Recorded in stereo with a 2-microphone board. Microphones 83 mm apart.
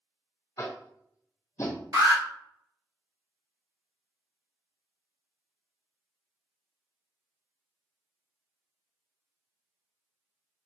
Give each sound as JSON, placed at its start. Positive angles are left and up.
{"t": 0.6, "sound": "tapping", "side_deg": 40, "distance_m": 0.8}
{"t": 1.9, "sound": "an alarm", "side_deg": -45, "distance_m": 1.5}